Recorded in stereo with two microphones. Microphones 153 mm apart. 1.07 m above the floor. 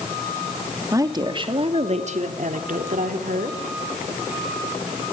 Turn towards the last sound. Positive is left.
turn(degrees=-75)  # may be behind; listen again after turning